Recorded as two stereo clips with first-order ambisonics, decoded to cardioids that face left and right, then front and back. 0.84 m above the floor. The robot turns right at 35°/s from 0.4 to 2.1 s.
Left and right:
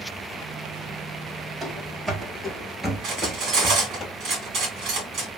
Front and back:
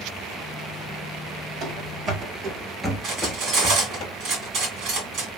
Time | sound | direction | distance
1.6 | running footsteps | 170° right | 1.1 m
3.0 | cutlery clinking | 135° right | 1.8 m